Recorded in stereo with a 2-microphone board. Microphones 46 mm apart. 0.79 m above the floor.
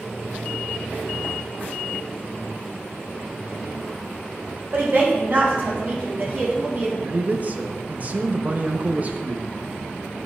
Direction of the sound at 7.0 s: 35° right (ahead or behind).